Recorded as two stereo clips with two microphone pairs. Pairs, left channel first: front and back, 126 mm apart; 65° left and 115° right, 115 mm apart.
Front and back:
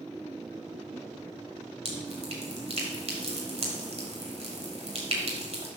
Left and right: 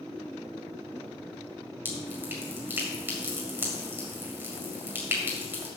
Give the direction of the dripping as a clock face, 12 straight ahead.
6 o'clock.